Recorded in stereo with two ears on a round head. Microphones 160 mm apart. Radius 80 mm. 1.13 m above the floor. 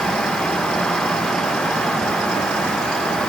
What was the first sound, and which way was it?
Only background noise.